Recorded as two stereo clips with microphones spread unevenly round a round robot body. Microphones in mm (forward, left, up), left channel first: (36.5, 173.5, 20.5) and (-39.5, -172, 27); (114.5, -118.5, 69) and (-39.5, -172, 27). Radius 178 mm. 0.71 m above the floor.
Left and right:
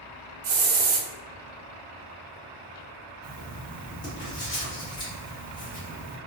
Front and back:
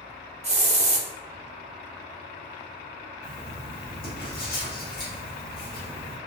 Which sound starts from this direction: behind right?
A hiss, at 0.4 s.